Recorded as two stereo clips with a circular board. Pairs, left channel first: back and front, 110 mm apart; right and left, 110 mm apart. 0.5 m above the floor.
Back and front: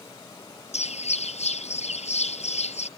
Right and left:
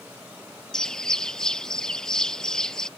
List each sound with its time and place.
0.7 s a bird: 175° right